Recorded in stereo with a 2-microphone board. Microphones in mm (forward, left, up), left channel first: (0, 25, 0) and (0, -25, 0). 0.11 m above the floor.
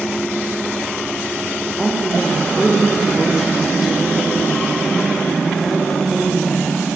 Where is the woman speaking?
5° right (ahead or behind), 5 m.